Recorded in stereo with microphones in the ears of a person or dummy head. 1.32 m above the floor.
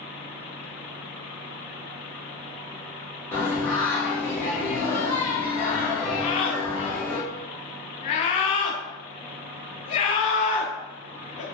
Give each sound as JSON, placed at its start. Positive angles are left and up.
{"t": 3.3, "sound": "singing", "side_deg": 15, "distance_m": 1.1}
{"t": 6.2, "sound": "a scream", "side_deg": 40, "distance_m": 0.6}